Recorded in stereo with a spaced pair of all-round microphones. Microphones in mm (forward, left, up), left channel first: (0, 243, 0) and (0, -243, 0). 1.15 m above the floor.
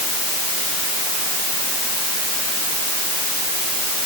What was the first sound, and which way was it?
Only background noise.